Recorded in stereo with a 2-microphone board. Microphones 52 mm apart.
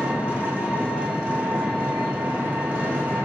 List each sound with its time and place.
0.0 s an engine running: 25° right (ahead or behind), 1.0 m